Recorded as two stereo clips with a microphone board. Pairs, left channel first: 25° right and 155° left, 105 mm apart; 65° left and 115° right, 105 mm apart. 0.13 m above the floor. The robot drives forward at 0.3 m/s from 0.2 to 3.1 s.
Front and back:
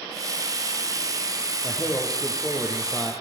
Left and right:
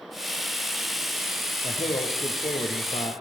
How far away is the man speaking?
About 5 m.